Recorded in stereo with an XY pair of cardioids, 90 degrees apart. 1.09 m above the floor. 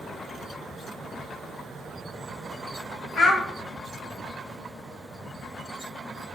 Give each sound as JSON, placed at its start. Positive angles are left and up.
{"t": 3.2, "sound": "a child speaking", "azimuth_deg": 60, "distance_m": 0.9}